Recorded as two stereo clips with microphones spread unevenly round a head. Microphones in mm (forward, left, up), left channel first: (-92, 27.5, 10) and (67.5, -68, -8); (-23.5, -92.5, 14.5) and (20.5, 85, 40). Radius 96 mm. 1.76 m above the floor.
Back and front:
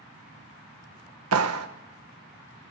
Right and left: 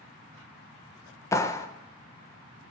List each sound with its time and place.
1.3 s a clap: 25° right, 1.5 m